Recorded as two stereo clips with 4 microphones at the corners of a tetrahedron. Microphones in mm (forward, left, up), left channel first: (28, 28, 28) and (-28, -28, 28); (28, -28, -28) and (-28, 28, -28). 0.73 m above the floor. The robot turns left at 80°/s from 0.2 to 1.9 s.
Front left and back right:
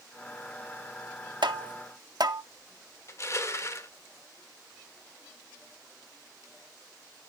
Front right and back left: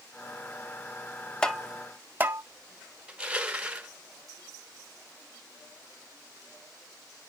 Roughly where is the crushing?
Left.